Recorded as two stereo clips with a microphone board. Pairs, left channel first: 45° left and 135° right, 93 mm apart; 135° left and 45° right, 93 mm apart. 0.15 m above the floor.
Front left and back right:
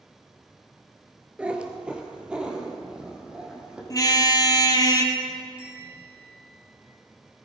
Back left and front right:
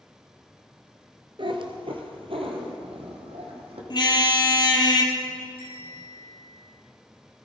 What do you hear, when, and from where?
1.4 s a cat meowing: 60° right, 1.4 m; by 3.8 s 55° right, 3.5 m
3.9 s a car horn: 95° left, 2 m
5.6 s a bell: 55° right, 6.5 m